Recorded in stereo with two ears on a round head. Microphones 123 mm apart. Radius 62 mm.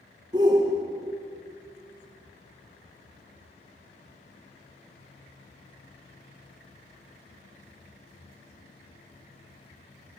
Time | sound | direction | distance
0.3 | a shout | 30° right (ahead or behind) | 1.1 m